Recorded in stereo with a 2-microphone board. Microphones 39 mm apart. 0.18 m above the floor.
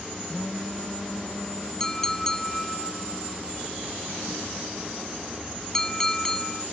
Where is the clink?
15° left (ahead or behind).